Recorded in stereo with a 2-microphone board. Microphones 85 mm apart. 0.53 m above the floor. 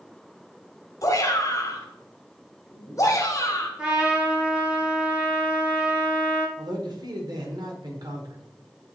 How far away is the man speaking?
About 1.8 m.